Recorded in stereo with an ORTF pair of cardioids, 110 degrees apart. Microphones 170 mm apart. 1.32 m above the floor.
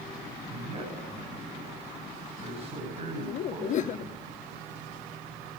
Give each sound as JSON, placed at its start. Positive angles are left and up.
{"t": 0.5, "sound": "a man speaking", "azimuth_deg": -40, "distance_m": 7.5}
{"t": 3.2, "sound": "laughter", "azimuth_deg": 45, "distance_m": 0.6}